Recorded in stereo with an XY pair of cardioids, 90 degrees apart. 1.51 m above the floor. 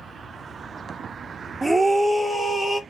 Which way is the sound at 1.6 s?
15° right.